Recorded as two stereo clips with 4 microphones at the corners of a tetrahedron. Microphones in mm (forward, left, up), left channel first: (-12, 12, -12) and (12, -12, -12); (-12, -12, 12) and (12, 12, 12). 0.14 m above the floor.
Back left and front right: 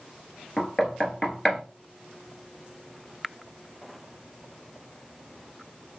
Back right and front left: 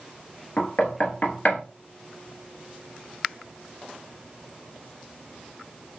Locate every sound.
0.6 s knocking: 155° right, 1.2 m